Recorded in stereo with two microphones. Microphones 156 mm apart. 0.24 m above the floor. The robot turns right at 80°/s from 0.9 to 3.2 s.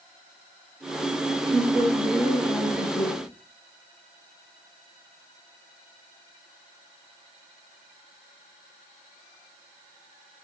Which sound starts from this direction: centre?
A woman speaking, at 1.5 s.